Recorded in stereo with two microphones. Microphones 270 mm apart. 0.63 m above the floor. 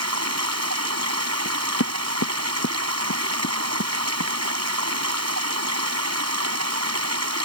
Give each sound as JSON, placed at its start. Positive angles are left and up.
{"t": 0.0, "sound": "running water", "side_deg": -65}
{"t": 1.4, "sound": "knocking", "side_deg": 65}